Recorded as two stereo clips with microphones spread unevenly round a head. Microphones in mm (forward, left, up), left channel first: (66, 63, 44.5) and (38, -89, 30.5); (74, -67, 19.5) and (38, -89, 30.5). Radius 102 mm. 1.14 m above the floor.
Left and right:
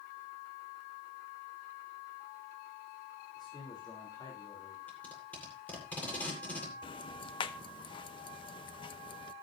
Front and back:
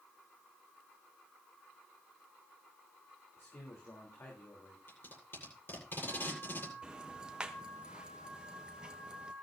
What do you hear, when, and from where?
3.4 s a man speaking: 15° left, 3.5 m
4.9 s tape being pulled: straight ahead, 8 m
6.8 s ticking: 125° left, 0.7 m